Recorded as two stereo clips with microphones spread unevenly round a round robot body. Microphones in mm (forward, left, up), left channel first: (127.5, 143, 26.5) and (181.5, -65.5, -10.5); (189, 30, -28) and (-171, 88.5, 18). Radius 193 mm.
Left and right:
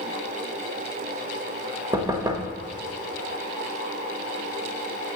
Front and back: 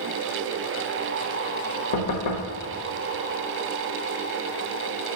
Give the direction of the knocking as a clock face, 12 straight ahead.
12 o'clock.